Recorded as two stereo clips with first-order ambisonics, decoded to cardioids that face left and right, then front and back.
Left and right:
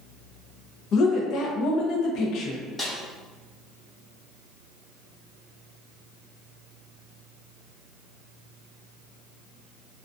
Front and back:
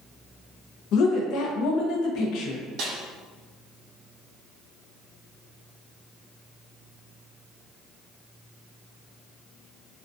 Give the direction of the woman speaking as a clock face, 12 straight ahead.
11 o'clock.